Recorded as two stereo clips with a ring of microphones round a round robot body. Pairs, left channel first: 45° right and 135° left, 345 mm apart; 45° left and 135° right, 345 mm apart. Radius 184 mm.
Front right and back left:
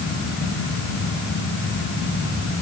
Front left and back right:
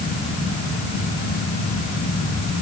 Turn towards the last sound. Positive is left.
No sound to turn to.